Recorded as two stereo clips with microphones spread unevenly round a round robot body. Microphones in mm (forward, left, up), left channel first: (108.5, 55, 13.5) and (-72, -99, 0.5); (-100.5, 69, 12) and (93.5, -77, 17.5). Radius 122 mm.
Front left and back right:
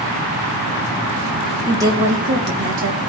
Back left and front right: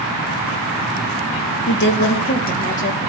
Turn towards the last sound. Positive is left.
turn(degrees=-155)